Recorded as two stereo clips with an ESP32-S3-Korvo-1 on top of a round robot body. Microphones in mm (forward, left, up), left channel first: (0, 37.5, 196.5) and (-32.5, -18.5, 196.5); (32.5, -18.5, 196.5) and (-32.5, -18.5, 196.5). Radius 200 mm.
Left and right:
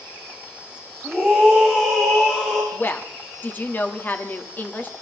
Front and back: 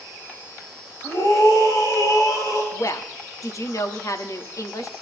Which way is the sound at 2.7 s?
5° left.